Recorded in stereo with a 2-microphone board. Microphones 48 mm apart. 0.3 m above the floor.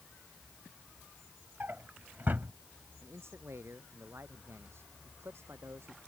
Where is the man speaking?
65° right (ahead or behind).